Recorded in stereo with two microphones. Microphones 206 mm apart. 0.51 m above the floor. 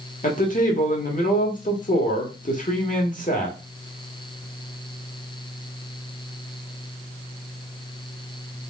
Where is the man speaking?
40° left (ahead or behind), 1.6 m.